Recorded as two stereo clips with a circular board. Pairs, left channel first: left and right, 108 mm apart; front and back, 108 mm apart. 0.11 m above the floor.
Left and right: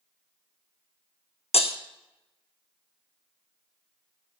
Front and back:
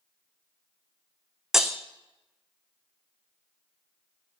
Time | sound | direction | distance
1.5 | breaking glass | 90° left | 1.0 m